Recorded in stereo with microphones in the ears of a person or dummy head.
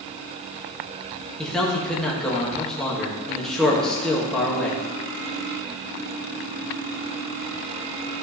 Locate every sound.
1.4 s a man speaking: centre (ahead or behind), 2.5 m